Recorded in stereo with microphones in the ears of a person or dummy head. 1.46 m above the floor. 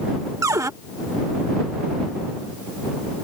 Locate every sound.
0.4 s a cupboard door: 20° right (ahead or behind)